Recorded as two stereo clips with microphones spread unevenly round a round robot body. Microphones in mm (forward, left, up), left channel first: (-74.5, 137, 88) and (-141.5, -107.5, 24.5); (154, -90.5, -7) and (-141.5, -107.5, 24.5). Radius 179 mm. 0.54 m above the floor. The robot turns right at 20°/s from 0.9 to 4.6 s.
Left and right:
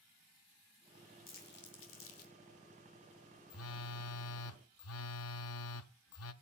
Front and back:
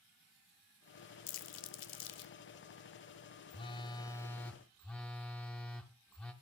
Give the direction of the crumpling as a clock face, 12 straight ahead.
12 o'clock.